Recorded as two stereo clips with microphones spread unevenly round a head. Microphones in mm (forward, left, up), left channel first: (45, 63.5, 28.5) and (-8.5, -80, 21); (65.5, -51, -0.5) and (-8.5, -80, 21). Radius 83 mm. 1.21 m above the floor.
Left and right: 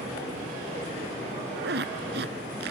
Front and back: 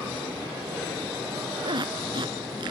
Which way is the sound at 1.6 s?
140° right.